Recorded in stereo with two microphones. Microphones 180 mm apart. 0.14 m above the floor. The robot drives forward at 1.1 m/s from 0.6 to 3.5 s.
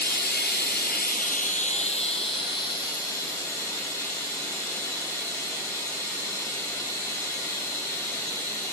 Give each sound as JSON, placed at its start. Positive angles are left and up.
{"t": 0.0, "sound": "running water", "side_deg": 65, "distance_m": 1.2}